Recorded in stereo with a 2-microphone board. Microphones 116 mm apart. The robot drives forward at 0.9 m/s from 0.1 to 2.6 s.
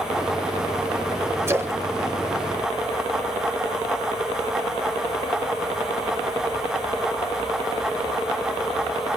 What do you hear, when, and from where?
1.5 s a splash: 20° right (ahead or behind), 1.3 m; by 3.3 s 45° right (ahead or behind), 0.7 m